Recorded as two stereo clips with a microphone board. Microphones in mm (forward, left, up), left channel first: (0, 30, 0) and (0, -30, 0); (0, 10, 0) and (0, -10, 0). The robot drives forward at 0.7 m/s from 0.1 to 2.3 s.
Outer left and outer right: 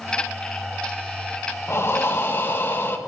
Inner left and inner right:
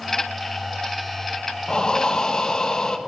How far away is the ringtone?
No ringtone in this recording.